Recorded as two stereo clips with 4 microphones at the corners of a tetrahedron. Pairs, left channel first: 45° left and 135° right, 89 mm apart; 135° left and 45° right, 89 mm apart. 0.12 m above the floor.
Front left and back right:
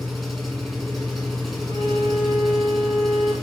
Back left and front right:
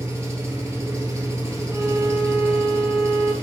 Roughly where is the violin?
Ahead.